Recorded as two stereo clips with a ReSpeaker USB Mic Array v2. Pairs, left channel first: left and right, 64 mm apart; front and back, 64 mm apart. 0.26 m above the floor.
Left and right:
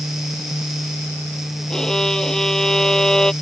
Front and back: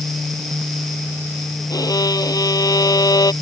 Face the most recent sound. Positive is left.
turn(degrees=5)